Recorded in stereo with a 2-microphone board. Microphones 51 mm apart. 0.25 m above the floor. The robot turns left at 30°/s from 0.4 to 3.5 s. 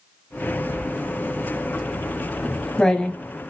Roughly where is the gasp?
No gasp in this recording.